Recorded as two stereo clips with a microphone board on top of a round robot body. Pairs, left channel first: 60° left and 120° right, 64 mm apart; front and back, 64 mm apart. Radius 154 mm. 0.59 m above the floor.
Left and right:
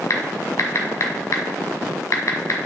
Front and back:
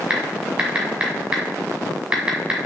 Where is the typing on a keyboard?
105° left, 1.3 m.